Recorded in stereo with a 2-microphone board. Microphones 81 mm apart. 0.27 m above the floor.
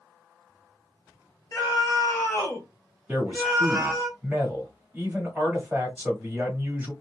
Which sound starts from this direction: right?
A man speaking, at 3.1 s.